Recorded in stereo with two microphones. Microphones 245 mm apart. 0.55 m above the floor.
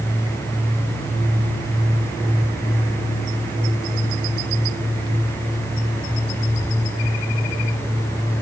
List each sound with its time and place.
Only background noise.